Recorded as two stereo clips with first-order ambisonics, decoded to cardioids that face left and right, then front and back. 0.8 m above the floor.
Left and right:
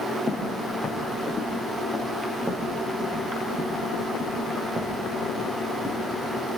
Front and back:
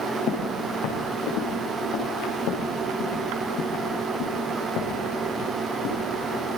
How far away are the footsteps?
About 5 m.